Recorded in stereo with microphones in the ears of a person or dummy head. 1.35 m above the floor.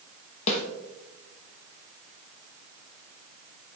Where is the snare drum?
35° left (ahead or behind), 1.0 m.